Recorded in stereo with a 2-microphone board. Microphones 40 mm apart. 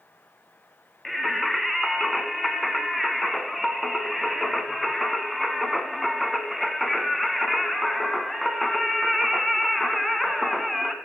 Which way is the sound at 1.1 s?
Centre (ahead or behind).